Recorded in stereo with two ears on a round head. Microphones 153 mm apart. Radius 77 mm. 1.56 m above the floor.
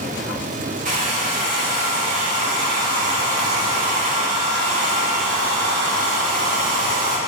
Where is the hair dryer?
50° right (ahead or behind), 3 m.